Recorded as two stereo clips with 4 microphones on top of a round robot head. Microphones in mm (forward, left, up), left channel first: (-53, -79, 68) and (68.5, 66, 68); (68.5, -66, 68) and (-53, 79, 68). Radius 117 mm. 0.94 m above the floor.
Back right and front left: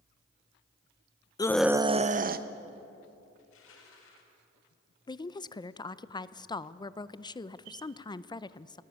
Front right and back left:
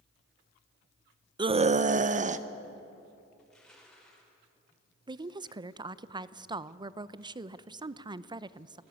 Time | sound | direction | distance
1.4 | a scream | straight behind | 0.7 m
3.4 | crushing | 140° right | 4.5 m
5.1 | a woman speaking | straight behind | 0.6 m